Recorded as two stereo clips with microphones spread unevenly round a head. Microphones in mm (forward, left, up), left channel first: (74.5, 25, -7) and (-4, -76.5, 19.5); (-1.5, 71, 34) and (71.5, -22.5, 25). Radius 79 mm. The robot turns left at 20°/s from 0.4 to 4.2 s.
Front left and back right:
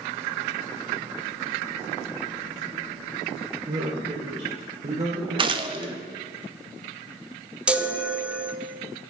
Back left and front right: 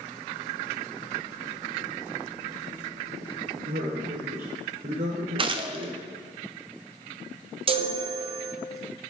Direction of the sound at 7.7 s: 40° right.